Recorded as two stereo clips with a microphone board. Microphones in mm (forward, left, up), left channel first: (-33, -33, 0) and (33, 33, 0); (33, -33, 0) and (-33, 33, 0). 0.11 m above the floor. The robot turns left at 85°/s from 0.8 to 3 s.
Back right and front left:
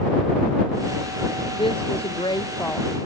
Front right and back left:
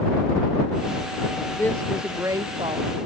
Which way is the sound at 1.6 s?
110° right.